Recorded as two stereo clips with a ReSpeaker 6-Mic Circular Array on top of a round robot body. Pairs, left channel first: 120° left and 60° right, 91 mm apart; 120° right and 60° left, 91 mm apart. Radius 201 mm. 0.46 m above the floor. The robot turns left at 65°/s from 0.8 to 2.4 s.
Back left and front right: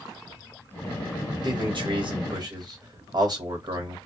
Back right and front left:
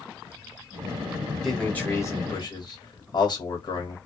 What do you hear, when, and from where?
1.4 s a man speaking: 30° right, 1.3 m; by 4.0 s 95° right, 1.3 m